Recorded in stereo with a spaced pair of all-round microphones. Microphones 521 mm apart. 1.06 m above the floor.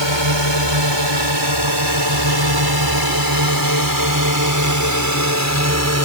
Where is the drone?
55° right (ahead or behind); by 6.0 s 30° right (ahead or behind).